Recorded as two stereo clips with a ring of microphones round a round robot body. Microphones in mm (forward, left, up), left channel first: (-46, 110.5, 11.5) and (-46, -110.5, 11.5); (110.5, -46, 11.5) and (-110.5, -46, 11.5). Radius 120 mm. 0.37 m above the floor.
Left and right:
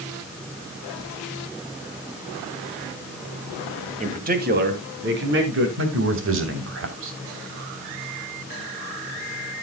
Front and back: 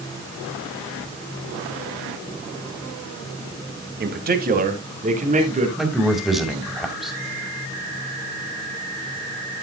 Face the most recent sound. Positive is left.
turn(degrees=-90)